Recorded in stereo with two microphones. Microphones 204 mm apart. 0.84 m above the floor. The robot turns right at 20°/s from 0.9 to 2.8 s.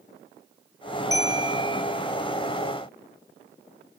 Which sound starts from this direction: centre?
A bell, at 1.1 s.